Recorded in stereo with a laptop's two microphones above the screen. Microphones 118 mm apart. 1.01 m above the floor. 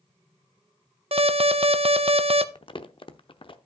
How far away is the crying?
No crying in this recording.